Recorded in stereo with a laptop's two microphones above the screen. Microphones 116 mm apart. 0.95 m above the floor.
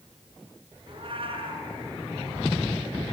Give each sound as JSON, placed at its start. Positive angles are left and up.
{"t": 0.9, "sound": "a cat meowing", "side_deg": -50, "distance_m": 5.0}